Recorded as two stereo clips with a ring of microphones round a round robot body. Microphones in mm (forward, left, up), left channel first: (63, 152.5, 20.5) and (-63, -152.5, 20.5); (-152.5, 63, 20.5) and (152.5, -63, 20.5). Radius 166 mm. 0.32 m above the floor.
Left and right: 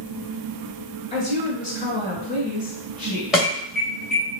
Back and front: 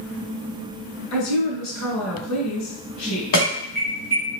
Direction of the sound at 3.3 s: 160° left.